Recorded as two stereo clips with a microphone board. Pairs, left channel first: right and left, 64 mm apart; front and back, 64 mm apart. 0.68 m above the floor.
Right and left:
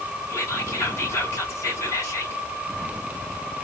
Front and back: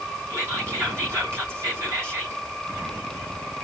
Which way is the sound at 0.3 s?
130° right.